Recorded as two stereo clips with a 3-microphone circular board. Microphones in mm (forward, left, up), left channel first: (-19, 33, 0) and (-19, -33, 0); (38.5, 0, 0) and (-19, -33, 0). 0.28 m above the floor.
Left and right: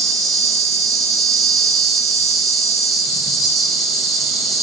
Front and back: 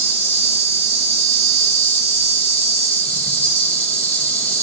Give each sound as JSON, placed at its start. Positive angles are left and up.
{"t": 0.0, "sound": "an insect", "azimuth_deg": -5, "distance_m": 2.5}